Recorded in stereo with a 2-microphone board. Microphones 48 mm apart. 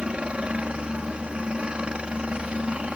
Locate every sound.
0.0 s a helicopter: 20° right (ahead or behind)